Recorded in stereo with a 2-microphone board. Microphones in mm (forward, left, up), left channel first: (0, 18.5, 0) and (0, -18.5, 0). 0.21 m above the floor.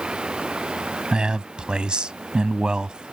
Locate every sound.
0.0 s running water: 25° right (ahead or behind)
1.1 s a man speaking: 25° right (ahead or behind)